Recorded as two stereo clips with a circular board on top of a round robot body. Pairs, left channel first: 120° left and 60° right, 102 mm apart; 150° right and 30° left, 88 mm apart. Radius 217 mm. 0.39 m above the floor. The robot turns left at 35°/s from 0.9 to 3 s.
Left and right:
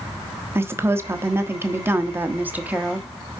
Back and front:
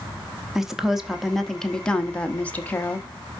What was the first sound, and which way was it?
A woman speaking, 50° right.